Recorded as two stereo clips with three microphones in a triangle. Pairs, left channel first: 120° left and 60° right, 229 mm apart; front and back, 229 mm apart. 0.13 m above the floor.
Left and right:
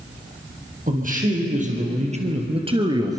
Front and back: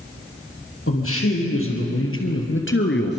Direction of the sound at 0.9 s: 10° right.